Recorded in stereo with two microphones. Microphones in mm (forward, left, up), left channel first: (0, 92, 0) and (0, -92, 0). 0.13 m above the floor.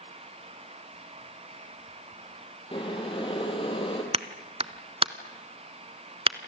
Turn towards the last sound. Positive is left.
turn(degrees=-30)  # may be behind; listen again after turning